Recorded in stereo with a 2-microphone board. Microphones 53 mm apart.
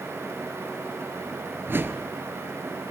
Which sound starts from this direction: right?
A whoosh, at 1.7 s.